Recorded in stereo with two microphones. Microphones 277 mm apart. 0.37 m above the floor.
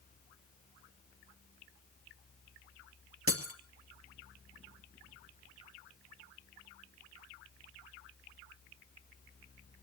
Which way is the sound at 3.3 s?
50° right (ahead or behind).